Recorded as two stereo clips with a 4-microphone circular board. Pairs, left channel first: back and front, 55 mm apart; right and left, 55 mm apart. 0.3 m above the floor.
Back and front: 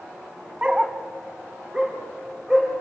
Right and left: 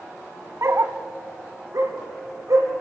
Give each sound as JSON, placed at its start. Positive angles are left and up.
{"t": 0.6, "sound": "a dog barking", "azimuth_deg": 70, "distance_m": 0.9}